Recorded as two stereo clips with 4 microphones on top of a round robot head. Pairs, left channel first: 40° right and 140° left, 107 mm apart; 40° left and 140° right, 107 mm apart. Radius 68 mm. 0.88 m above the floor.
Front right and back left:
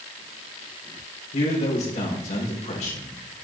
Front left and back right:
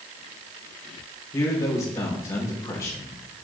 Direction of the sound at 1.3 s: 25° right.